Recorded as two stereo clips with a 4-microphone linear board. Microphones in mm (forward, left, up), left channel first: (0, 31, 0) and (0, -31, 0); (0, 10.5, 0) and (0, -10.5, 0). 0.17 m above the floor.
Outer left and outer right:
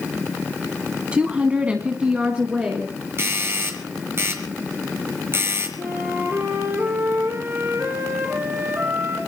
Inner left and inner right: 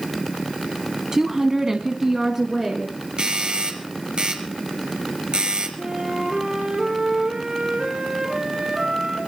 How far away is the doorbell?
About 4 m.